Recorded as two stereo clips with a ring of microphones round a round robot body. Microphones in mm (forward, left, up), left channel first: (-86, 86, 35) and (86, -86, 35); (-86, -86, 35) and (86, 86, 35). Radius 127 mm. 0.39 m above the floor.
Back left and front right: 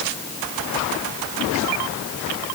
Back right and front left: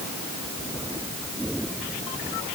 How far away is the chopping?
I don't hear chopping.